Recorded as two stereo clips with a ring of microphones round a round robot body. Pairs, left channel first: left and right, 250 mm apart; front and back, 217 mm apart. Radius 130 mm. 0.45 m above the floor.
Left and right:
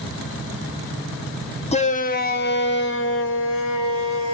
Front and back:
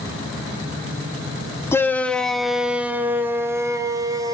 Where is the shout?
65° left, 1.0 m; by 4.3 s 110° left, 2 m.